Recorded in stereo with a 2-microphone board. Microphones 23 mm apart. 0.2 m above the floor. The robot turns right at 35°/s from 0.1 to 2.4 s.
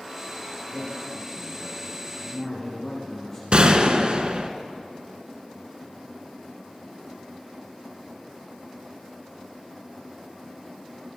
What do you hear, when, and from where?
0.7 s a man speaking: 45° right, 5.5 m; by 3.4 s 15° left, 5.5 m
3.5 s a gunshot: 50° right (ahead or behind), 1.3 m